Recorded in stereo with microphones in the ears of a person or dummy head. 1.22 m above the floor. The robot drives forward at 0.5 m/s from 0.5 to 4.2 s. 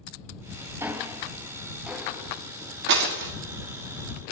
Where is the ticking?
10° right (ahead or behind), 0.6 m; by 2.3 s 5° right (ahead or behind), 1.3 m.